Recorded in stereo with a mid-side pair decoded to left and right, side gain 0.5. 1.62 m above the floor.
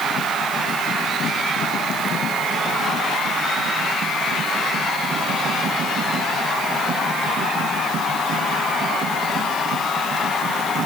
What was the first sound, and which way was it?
Only background noise.